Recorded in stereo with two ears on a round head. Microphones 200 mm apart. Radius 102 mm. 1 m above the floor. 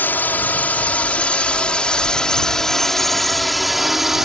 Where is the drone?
10° left (ahead or behind); by 4.2 s centre (ahead or behind).